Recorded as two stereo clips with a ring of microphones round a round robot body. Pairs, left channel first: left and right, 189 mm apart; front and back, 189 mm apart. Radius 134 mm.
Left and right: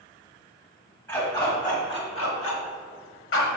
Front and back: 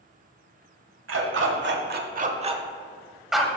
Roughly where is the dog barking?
Behind.